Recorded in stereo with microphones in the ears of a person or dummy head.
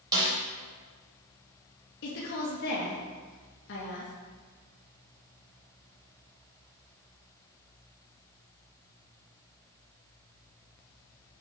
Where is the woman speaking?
70° left (ahead or behind), 2 m.